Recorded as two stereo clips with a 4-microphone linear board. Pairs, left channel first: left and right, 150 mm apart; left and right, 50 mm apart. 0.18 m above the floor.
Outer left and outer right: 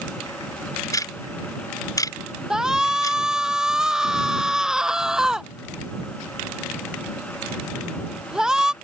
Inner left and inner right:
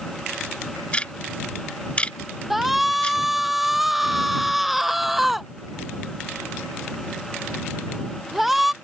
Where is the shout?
5° right (ahead or behind).